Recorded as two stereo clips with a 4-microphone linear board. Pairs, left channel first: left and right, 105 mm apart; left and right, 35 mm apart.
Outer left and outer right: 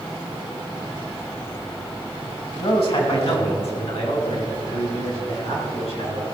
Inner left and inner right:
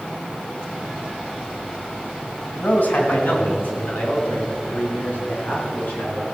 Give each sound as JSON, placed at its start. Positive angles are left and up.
{"t": 2.6, "sound": "a man speaking", "side_deg": 65, "distance_m": 3.0}